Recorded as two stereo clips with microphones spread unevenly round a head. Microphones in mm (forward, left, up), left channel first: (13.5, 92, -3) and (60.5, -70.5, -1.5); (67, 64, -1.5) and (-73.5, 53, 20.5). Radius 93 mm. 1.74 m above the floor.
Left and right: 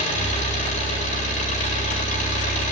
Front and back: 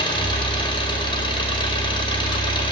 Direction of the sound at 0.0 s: 60° left.